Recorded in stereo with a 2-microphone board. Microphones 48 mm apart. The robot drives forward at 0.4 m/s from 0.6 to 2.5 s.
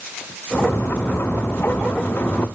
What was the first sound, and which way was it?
Only background noise.